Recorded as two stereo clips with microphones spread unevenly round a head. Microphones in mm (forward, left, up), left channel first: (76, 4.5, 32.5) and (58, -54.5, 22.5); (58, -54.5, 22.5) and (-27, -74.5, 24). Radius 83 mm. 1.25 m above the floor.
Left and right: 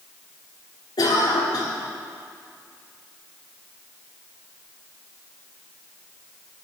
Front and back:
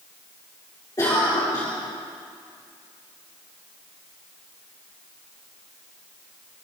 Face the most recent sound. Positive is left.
turn(degrees=80)